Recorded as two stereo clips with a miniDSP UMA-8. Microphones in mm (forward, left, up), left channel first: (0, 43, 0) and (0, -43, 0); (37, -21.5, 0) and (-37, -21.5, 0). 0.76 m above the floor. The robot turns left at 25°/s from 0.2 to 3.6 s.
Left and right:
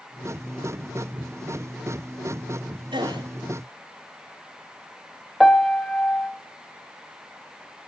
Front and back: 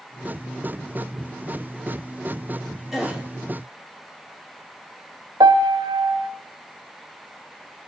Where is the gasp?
95° right, 2.5 m; by 3.2 s 105° right, 2.5 m.